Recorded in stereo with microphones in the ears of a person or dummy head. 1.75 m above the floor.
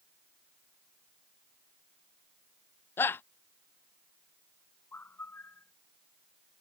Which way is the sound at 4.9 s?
15° left (ahead or behind).